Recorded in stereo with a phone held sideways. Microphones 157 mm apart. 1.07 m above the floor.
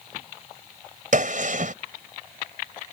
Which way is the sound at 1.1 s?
55° right (ahead or behind).